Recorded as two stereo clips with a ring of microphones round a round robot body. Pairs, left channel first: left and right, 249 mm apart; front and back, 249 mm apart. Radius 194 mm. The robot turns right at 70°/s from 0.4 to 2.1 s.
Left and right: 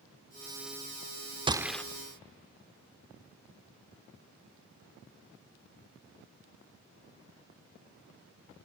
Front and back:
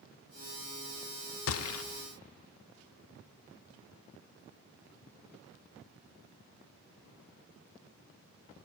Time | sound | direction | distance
1.5 | a gunshot | 20° right | 0.6 m